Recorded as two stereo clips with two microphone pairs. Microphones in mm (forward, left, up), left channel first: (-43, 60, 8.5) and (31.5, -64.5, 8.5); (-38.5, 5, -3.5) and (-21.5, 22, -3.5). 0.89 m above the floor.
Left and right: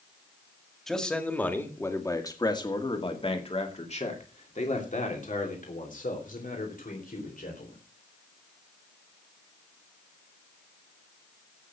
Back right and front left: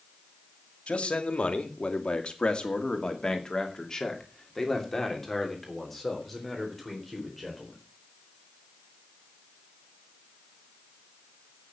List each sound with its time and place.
0.9 s a man speaking: 155° right, 2.5 m; by 7.8 s 130° left, 4.5 m